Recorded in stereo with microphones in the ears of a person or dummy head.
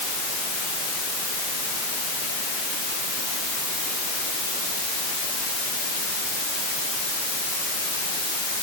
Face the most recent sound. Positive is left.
No sound to turn to.